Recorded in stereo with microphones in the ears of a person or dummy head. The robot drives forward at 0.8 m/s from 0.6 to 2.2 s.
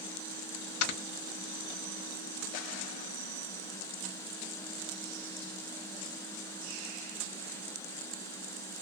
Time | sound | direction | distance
0.8 | snoring | 60° left (ahead or behind) | 1.4 m